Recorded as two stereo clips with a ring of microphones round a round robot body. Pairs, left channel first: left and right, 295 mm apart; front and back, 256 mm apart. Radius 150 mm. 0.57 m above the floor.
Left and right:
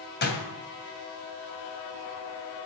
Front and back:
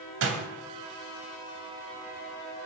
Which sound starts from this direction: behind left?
A door slam, at 0.2 s.